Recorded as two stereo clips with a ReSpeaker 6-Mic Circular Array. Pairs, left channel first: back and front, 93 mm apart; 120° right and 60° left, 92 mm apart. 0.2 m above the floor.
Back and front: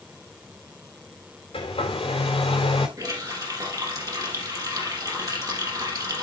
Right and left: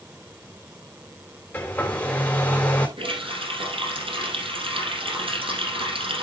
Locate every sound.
1.5 s a hair dryer: 170° left, 4 m
3.0 s a running tap: 50° left, 4 m